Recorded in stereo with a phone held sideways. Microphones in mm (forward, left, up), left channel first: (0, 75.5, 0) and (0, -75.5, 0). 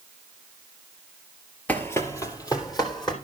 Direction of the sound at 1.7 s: 10° left (ahead or behind).